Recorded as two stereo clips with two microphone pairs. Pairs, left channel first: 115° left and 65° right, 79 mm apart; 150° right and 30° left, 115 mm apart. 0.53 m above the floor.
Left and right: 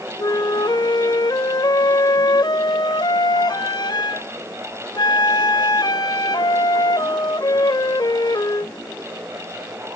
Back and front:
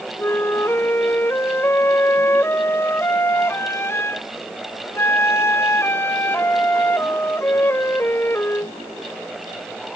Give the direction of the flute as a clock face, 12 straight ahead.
7 o'clock.